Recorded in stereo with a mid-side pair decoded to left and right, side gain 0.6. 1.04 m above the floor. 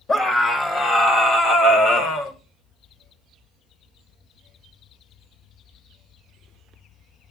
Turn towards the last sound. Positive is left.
turn(degrees=70)